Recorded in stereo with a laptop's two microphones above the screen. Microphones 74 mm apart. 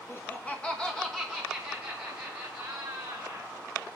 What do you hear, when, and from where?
0.1 s laughter: 30° left (ahead or behind), 0.9 m; by 3.5 s 15° right (ahead or behind), 3 m